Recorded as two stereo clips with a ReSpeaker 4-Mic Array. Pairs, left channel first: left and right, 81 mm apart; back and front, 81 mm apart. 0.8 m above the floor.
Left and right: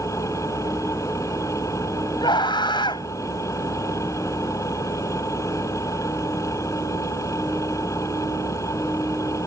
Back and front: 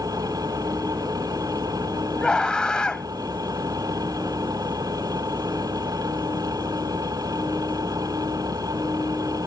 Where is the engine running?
40° left.